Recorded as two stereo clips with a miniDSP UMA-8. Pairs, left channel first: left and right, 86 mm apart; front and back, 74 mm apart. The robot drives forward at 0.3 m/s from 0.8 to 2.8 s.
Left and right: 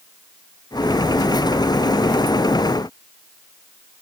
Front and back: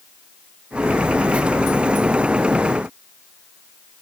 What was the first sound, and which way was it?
Only background noise.